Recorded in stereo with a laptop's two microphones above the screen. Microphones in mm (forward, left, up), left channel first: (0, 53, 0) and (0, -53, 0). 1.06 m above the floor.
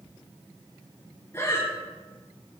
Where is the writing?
No writing in this recording.